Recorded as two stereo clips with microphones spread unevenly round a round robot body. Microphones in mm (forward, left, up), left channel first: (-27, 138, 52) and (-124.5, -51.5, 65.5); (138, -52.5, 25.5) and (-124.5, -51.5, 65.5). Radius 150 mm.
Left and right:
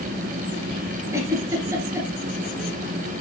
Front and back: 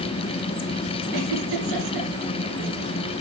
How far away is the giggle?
About 3 m.